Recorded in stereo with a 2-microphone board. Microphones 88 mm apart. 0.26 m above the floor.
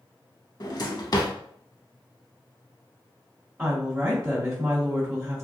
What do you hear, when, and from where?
0.6 s a drawer: 50° left (ahead or behind), 0.5 m
3.6 s a woman speaking: 20° right (ahead or behind), 1.6 m